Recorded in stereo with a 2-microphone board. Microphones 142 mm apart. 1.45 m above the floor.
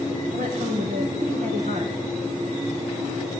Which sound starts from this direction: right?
A woman speaking, at 0.3 s.